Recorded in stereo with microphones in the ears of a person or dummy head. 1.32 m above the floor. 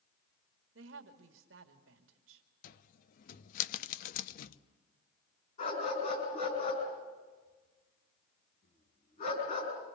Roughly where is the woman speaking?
Right.